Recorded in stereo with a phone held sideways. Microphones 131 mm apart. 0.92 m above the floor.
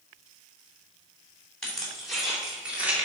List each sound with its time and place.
1.6 s keys jangling: 5° left (ahead or behind), 2 m; by 3.1 s 15° right (ahead or behind), 1.7 m